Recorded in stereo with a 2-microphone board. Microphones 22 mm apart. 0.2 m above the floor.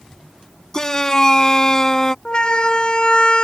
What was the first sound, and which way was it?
A shout, 25° left (ahead or behind).